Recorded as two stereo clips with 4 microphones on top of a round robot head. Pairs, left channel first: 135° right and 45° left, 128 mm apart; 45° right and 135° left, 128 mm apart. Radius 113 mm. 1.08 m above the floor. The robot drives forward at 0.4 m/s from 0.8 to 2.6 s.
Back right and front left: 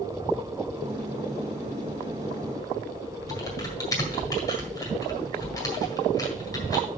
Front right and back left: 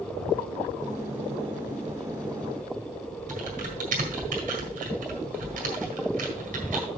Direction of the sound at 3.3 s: 160° left.